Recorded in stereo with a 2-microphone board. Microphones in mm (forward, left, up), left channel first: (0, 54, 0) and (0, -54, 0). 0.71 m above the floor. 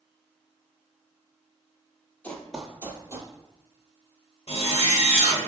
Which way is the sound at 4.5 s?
80° left.